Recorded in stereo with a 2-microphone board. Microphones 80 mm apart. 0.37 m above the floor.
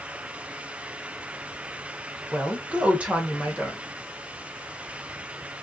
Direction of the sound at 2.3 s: 15° right (ahead or behind).